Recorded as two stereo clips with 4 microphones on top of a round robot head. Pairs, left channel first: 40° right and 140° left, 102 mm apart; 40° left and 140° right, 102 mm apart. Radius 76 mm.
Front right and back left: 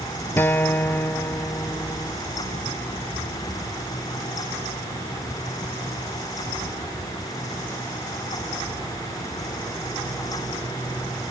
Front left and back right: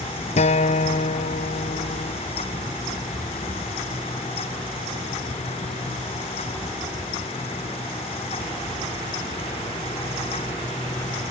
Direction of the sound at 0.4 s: 35° left.